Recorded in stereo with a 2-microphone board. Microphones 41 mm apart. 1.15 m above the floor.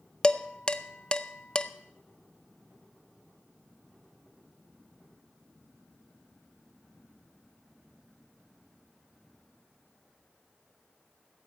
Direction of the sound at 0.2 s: 20° left (ahead or behind).